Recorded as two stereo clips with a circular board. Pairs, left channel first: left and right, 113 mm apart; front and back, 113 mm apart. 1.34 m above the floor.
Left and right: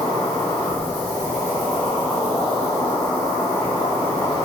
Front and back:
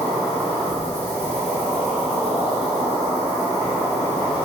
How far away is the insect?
About 0.9 m.